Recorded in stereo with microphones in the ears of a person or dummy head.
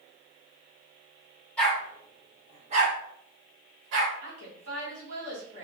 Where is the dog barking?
10° left (ahead or behind), 1.9 m; by 4.1 s 75° right (ahead or behind), 2.5 m.